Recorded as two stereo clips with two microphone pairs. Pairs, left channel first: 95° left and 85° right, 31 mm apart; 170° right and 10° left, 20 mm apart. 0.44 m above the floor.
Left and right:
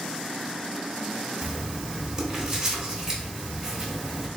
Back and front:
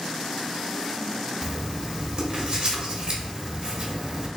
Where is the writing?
20° right, 1.2 m.